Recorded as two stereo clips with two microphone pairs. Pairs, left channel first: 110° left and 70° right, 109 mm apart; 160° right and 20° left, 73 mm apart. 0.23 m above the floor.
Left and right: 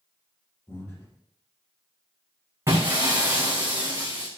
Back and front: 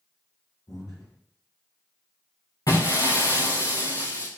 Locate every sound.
0.7 s breathing: 170° left, 4.5 m
2.7 s breaking glass: 130° right, 2.5 m